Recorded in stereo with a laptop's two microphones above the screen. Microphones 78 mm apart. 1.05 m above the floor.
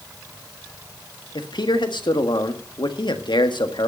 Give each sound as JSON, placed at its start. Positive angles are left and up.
{"t": 1.4, "sound": "a man speaking", "side_deg": 75, "distance_m": 1.5}